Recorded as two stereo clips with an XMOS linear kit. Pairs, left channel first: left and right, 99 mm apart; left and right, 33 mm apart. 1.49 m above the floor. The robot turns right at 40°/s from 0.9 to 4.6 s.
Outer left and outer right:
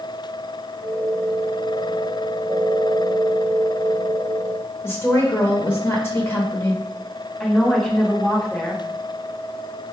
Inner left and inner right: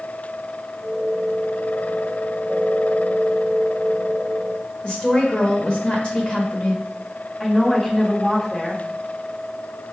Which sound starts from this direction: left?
A woman speaking, at 4.8 s.